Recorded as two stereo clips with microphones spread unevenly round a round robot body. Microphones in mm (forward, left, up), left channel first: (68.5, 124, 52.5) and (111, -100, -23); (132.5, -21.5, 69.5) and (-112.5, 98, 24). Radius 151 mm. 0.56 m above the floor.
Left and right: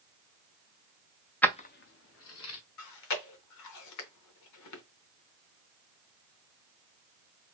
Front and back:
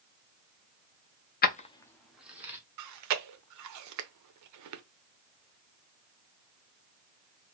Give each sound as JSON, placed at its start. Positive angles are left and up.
{"t": 1.4, "sound": "keys jangling", "azimuth_deg": -25, "distance_m": 0.6}
{"t": 2.8, "sound": "chewing", "azimuth_deg": 130, "distance_m": 0.7}